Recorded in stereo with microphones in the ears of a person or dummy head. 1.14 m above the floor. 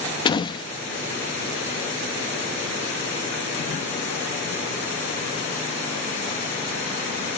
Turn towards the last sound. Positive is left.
turn(degrees=25)  # may be behind; listen again after turning